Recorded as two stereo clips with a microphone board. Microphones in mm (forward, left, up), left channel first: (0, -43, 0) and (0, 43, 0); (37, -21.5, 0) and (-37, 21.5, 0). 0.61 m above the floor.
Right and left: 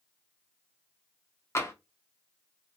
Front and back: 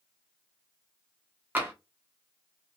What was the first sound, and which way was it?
Tapping, 145° right.